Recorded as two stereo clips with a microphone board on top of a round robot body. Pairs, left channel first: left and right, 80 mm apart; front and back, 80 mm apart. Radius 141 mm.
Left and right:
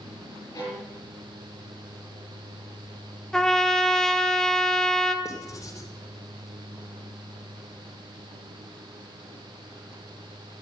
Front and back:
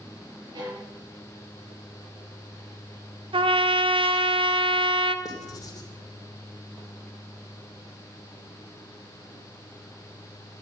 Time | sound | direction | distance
0.6 | a violin | 140° left | 7.5 m
3.3 | a trumpet | 175° left | 1.1 m
5.2 | writing | 45° left | 2.5 m